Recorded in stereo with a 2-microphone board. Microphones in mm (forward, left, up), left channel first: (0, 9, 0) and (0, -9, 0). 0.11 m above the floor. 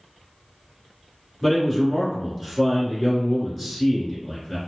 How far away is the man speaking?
About 1.3 m.